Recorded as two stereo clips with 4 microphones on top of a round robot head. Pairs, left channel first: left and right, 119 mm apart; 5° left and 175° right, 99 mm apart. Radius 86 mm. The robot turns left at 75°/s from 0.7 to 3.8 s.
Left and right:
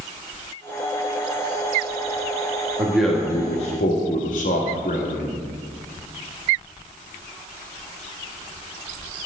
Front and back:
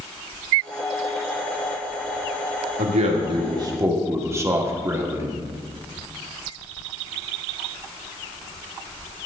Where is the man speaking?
160° right, 1.8 m; by 5.4 s 125° left, 1.8 m.